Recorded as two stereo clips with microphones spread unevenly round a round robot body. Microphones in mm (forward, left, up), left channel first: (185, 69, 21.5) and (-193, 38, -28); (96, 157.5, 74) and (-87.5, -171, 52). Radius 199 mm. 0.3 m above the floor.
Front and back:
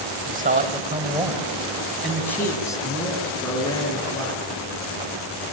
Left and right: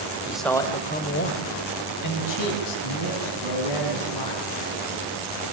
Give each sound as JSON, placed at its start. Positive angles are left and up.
{"t": 0.3, "sound": "a man speaking", "azimuth_deg": 165, "distance_m": 1.7}